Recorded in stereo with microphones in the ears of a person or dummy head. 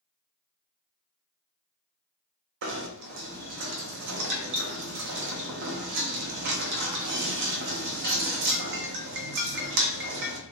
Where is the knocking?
60° right (ahead or behind), 0.6 m.